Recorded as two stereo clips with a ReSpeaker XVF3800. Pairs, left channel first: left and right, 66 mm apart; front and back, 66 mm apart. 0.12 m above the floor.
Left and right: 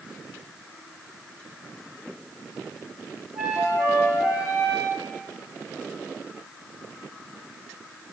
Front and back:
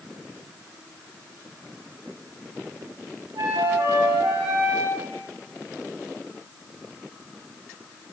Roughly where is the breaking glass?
I don't hear breaking glass.